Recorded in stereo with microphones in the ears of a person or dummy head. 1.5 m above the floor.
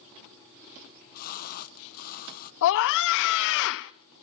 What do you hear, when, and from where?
0.8 s a splash: 50° left (ahead or behind), 0.9 m
2.6 s a scream: 65° left (ahead or behind), 0.6 m